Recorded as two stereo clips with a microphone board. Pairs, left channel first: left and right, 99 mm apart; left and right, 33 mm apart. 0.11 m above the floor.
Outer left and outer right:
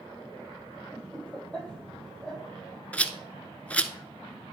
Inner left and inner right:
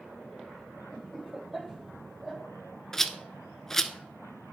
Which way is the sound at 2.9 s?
15° left (ahead or behind).